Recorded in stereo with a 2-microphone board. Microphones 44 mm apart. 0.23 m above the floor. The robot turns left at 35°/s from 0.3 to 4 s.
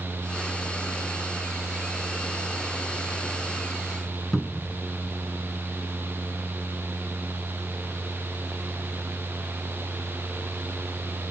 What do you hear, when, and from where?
4.3 s a cupboard door: 5° left (ahead or behind)